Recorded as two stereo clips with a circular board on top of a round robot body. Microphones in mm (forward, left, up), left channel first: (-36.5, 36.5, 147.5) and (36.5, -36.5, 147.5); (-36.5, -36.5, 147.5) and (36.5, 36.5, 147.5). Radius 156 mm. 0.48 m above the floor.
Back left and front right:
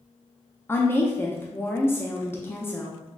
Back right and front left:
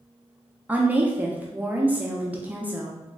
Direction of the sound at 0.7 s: 100° left.